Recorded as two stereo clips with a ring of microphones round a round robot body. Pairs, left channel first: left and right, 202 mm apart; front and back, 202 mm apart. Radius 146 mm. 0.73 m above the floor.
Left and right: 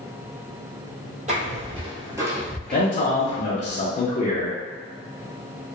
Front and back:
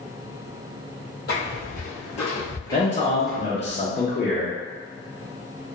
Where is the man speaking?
50° left, 0.7 m.